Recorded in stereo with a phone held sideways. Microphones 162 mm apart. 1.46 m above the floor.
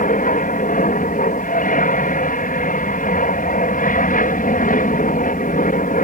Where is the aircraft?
55° left (ahead or behind).